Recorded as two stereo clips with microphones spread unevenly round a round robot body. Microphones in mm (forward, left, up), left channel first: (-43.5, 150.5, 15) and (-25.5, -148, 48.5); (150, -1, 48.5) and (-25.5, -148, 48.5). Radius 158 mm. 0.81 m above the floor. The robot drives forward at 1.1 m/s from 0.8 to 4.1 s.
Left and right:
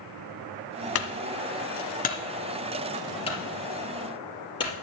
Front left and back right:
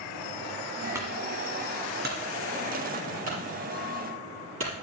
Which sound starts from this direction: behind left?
A clunk, at 0.9 s.